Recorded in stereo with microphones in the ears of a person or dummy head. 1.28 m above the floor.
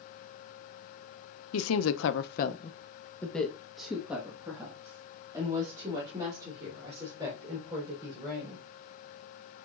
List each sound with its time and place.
1.5 s a woman speaking: 80° left, 0.8 m; by 8.7 s 25° right (ahead or behind), 5 m